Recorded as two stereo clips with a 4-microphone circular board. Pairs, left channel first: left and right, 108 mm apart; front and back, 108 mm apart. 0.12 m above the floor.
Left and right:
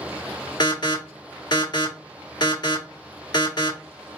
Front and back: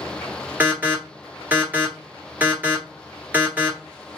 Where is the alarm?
115° left, 1.6 m.